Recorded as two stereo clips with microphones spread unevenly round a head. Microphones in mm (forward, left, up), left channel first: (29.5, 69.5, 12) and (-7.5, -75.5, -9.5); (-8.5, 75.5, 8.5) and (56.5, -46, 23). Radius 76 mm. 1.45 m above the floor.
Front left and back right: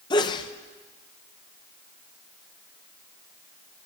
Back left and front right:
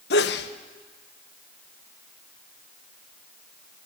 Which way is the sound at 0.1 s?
140° left.